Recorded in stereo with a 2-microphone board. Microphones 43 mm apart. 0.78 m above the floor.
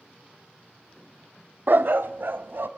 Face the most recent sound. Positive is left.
turn(degrees=-60)  # may be behind; listen again after turning